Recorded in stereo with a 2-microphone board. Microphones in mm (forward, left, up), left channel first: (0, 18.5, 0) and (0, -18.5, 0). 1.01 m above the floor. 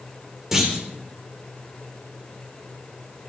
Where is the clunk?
10° right (ahead or behind), 3.5 m.